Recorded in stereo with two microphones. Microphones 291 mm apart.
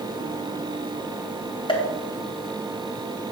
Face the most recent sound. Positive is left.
turn(degrees=15)  # may be behind; listen again after turning